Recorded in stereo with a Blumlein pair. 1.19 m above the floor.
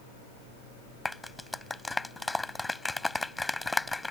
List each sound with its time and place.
1.1 s a clap: 5° left